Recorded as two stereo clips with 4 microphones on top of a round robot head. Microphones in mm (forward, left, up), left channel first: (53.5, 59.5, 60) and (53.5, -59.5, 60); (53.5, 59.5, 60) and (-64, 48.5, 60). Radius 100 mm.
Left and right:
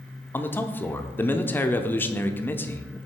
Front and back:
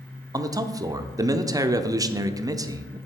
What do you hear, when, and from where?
0.3 s a man speaking: 150° left, 0.8 m